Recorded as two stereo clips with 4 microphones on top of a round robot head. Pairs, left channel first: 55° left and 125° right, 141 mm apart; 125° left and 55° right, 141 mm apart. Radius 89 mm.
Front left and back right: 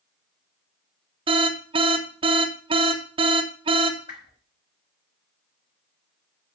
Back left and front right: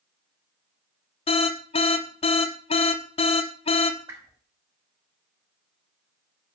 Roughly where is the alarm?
Behind.